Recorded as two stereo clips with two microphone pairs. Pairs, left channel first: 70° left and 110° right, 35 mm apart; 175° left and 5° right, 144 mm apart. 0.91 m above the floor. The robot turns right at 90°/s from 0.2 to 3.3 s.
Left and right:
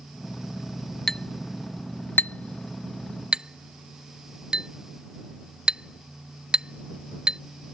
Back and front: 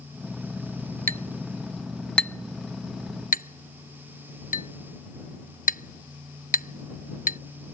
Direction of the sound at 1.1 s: 10° right.